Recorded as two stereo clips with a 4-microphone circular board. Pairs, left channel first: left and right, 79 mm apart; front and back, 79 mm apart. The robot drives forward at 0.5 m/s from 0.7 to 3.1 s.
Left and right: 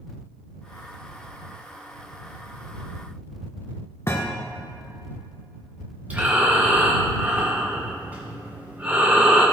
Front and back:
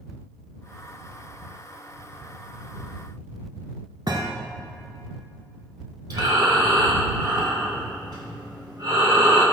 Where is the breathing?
160° right, 2.5 m.